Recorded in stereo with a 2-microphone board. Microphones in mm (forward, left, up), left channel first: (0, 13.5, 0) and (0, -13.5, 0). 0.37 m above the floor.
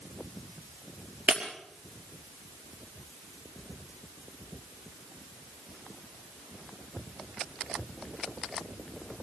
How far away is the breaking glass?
About 4.5 m.